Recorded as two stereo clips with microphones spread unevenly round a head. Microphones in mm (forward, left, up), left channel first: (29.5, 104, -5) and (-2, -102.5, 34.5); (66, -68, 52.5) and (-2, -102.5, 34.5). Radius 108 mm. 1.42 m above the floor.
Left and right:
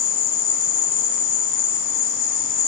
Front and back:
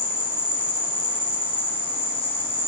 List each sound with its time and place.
0.0 s an insect: 70° left, 3 m